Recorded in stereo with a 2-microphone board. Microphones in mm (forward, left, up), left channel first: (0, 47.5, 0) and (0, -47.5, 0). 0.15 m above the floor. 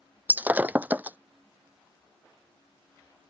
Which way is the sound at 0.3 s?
20° right (ahead or behind).